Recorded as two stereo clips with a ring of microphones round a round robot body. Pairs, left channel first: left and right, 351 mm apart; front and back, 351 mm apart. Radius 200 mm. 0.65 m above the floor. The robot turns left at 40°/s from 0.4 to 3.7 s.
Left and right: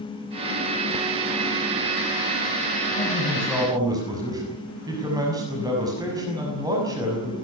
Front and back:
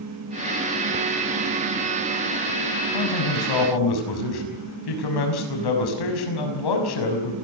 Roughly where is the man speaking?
Ahead.